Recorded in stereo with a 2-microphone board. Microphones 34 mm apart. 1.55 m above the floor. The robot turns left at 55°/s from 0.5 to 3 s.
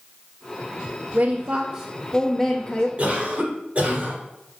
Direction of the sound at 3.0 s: 40° right (ahead or behind).